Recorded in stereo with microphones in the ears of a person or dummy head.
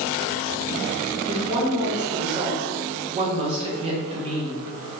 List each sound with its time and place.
1.3 s a woman speaking: 30° right (ahead or behind), 1.5 m